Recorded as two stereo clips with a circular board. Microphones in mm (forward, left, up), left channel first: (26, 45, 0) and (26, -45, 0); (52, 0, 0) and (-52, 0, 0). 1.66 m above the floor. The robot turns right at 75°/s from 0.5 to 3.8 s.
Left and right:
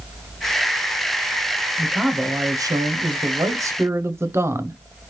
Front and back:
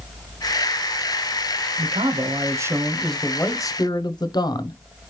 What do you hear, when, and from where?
1.8 s a man speaking: 175° left, 0.6 m; by 4.8 s 35° right, 0.6 m